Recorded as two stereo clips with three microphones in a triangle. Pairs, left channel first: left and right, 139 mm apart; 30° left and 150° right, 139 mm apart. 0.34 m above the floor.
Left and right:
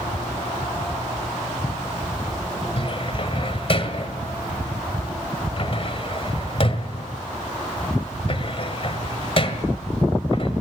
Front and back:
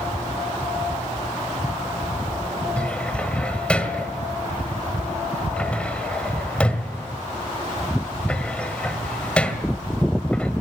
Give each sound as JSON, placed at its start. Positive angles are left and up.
{"t": 2.8, "sound": "a cupboard door", "azimuth_deg": 110, "distance_m": 1.7}